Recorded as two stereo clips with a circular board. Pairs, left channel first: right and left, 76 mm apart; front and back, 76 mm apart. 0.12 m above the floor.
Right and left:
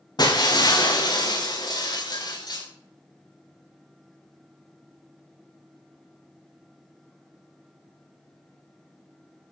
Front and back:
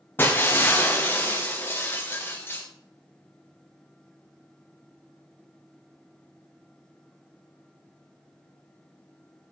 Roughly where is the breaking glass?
Ahead right.